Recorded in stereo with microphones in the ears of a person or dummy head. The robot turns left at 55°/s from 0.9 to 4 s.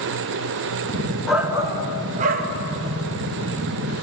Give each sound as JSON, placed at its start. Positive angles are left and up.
{"t": 1.3, "sound": "a shout", "azimuth_deg": -5, "distance_m": 1.0}